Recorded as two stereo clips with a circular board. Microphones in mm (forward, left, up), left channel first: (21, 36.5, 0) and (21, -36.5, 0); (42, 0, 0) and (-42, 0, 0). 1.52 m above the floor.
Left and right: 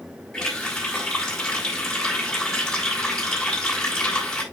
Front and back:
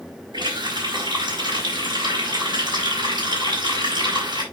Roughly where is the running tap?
Behind.